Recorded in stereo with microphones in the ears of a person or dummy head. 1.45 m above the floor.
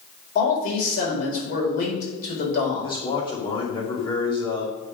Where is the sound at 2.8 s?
25° left (ahead or behind), 2.5 m.